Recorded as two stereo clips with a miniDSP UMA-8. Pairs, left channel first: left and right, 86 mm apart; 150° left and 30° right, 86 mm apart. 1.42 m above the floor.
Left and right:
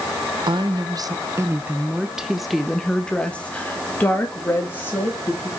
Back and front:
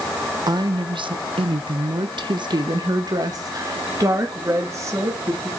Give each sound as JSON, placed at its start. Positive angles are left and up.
{"t": 0.5, "sound": "a woman speaking", "azimuth_deg": -70, "distance_m": 1.0}